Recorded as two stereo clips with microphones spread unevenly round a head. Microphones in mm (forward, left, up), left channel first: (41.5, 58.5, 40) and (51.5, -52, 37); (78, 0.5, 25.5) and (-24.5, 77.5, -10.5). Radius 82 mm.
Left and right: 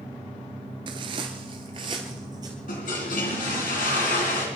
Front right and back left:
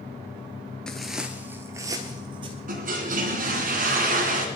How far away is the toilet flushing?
About 3 m.